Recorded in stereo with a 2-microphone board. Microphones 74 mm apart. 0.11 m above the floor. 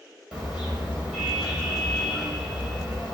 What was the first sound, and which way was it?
A car horn, 10° right (ahead or behind).